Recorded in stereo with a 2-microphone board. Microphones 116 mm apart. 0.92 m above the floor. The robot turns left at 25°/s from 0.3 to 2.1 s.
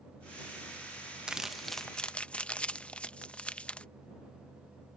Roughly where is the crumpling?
Centre.